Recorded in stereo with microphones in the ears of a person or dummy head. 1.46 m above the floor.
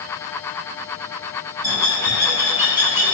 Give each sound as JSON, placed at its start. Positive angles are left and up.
{"t": 1.6, "sound": "a bird", "side_deg": -25, "distance_m": 1.3}